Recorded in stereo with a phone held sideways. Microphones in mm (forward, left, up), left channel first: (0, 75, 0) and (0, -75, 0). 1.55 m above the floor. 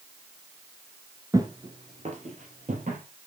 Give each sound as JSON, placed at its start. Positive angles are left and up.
{"t": 1.3, "sound": "footsteps", "side_deg": -20, "distance_m": 1.6}